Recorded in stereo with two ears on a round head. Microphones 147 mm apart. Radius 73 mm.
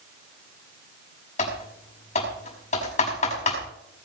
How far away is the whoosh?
No whoosh in this recording.